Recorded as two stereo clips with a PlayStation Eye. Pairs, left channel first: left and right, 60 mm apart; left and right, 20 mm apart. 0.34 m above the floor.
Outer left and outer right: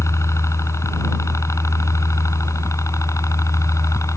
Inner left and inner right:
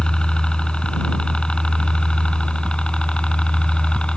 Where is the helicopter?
60° left (ahead or behind); by 4.2 s 65° left (ahead or behind).